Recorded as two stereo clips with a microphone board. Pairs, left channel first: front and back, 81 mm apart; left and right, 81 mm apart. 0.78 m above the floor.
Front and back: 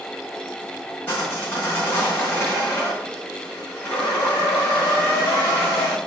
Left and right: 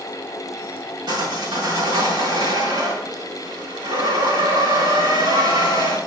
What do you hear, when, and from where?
1.1 s sawing: 65° right, 4 m